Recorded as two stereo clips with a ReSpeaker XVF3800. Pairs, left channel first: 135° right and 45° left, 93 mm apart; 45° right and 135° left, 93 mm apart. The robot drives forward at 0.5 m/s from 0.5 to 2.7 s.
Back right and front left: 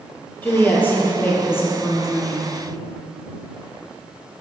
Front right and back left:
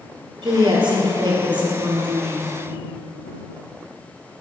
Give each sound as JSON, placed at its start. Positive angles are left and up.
{"t": 0.4, "sound": "a woman speaking", "azimuth_deg": 155, "distance_m": 2.5}